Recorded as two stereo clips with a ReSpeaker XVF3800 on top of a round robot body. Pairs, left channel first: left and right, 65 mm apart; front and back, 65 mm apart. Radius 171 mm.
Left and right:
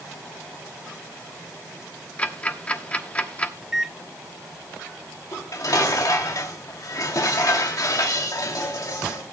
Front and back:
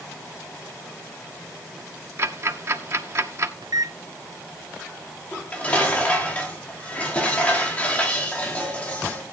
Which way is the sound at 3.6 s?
175° right.